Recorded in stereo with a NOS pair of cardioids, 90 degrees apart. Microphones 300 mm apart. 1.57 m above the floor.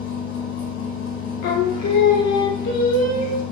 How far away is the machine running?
About 1.1 m.